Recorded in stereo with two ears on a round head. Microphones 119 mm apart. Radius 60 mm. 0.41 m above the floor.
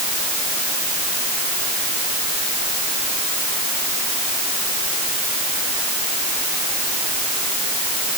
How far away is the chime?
I don't hear a chime.